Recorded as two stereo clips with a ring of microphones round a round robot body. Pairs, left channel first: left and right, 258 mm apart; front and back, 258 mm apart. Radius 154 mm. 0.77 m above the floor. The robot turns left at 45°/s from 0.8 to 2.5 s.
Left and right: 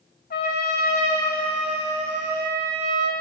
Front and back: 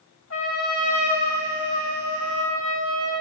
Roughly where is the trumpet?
Ahead left.